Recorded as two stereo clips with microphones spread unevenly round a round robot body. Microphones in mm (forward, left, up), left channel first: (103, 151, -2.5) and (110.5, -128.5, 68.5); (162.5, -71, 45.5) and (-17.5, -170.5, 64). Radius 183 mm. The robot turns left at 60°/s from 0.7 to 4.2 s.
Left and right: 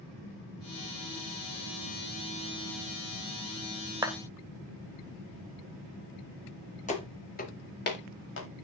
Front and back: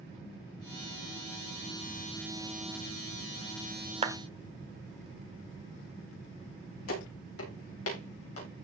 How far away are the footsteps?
About 7 m.